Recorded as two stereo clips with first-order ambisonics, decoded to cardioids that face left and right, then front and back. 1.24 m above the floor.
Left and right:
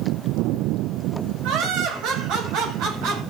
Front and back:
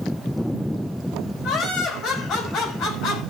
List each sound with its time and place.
1.4 s laughter: 60° right, 6.5 m; by 3.2 s 55° right, 7.5 m